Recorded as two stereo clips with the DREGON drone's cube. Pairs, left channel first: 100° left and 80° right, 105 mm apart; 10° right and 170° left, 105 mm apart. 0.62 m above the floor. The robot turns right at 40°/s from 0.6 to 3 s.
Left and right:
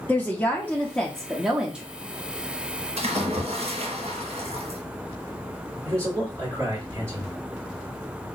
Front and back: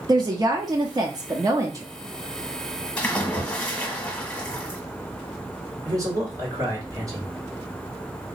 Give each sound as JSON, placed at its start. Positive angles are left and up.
{"t": 0.1, "sound": "a woman speaking", "azimuth_deg": 165, "distance_m": 0.6}
{"t": 3.0, "sound": "a splash", "azimuth_deg": -90, "distance_m": 1.3}
{"t": 5.8, "sound": "a man speaking", "azimuth_deg": -140, "distance_m": 2.0}